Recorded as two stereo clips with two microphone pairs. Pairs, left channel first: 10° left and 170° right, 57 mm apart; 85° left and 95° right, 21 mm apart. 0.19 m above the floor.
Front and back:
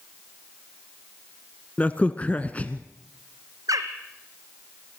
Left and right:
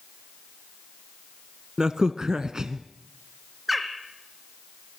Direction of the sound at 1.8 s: 50° right.